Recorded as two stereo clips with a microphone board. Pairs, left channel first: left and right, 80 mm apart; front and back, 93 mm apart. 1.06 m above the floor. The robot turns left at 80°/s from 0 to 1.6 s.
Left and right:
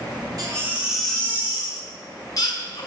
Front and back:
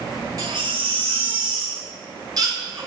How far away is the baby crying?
About 5 m.